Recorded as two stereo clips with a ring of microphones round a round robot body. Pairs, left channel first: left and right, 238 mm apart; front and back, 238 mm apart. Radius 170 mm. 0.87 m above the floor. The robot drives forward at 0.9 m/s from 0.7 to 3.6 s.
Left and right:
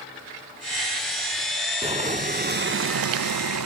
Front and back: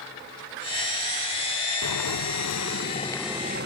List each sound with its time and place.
1.8 s boiling: 25° right, 1.4 m; by 3.7 s 120° right, 0.7 m